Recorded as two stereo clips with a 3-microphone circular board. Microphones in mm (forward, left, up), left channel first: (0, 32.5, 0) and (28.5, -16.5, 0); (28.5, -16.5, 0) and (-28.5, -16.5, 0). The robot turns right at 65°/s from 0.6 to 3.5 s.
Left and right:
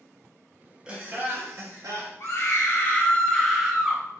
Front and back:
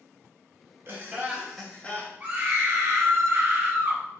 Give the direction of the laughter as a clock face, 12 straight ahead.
4 o'clock.